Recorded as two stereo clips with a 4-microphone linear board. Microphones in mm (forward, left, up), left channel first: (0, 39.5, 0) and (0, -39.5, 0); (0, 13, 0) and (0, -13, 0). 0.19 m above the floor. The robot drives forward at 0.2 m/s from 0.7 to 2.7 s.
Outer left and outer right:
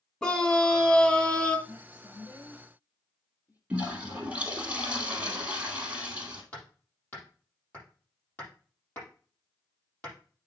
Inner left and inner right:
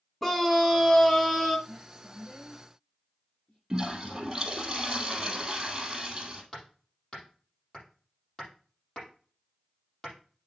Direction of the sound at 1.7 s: 50° left (ahead or behind).